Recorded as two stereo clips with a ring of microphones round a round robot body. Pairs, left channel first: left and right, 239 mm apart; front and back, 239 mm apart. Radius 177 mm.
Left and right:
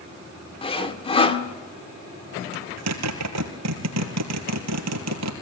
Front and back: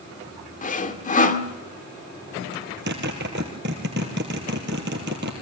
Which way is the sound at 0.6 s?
35° left.